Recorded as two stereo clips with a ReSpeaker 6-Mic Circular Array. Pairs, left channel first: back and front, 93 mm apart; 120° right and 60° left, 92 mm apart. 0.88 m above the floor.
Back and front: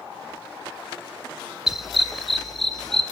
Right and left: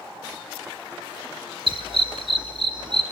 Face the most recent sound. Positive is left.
turn(degrees=95)